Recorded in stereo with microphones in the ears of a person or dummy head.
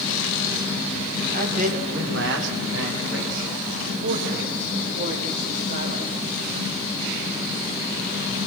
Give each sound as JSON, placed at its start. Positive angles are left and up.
{"t": 1.3, "sound": "a man speaking", "side_deg": -40, "distance_m": 3.0}